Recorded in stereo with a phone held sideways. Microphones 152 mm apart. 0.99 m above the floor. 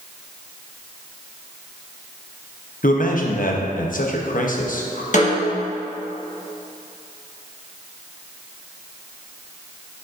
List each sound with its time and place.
2.8 s a man speaking: 65° left (ahead or behind), 0.8 m
5.1 s a snare drum: 55° left (ahead or behind), 1.2 m